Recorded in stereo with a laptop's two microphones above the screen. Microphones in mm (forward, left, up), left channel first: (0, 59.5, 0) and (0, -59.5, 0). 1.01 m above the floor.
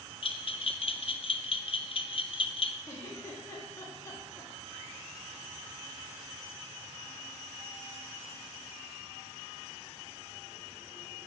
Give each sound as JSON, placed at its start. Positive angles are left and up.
{"t": 0.2, "sound": "a bell", "side_deg": 50, "distance_m": 0.5}
{"t": 2.9, "sound": "a giggle", "side_deg": 25, "distance_m": 2.0}